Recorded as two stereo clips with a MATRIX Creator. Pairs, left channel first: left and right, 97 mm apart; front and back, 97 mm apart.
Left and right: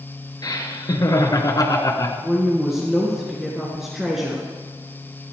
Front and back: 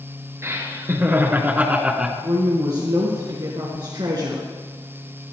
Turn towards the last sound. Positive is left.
turn(degrees=-175)